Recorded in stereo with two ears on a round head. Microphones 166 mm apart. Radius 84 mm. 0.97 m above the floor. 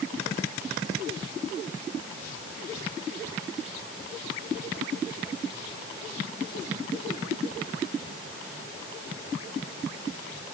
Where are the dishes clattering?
No dishes clattering in this recording.